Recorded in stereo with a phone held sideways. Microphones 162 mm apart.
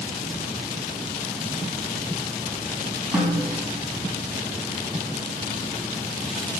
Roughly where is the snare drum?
Centre.